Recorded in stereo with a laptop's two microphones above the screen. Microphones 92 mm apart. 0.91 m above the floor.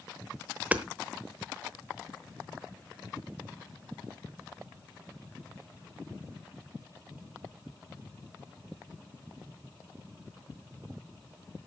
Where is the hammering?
15° right (ahead or behind), 0.9 m.